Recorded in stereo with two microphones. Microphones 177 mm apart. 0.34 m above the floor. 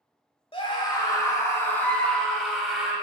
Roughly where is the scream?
Left.